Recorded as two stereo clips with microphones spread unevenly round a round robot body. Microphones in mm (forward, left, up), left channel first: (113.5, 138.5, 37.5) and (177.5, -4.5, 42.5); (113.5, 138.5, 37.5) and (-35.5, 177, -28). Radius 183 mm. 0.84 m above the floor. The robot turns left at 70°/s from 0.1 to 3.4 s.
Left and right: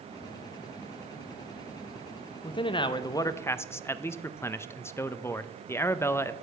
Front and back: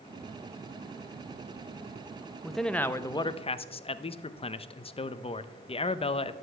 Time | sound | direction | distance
2.4 | a man speaking | 120° left | 0.5 m